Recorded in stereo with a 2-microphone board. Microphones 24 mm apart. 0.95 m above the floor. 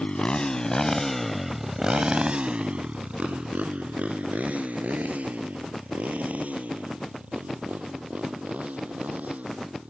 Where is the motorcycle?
40° left (ahead or behind); by 9.9 s 85° right.